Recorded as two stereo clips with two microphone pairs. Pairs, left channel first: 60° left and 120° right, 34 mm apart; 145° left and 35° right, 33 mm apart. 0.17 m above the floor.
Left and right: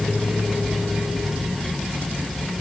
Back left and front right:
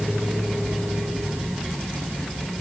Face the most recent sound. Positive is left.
No sound to turn to.